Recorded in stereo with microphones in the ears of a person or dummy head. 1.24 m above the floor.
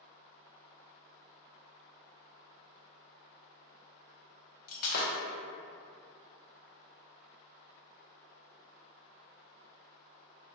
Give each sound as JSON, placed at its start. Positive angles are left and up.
{"t": 4.7, "sound": "breaking glass", "side_deg": 45, "distance_m": 0.8}